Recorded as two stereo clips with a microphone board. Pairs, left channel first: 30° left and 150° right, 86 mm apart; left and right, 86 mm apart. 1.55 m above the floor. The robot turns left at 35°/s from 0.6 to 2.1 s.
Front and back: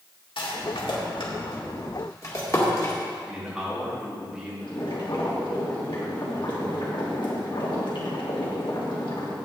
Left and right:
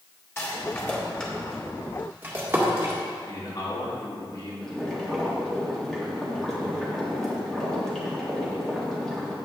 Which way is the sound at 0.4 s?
30° left.